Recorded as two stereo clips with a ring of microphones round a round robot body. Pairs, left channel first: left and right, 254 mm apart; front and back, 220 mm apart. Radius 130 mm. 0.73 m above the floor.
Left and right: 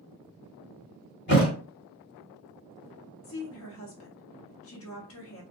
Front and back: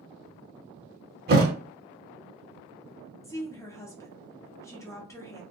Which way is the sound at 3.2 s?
75° left.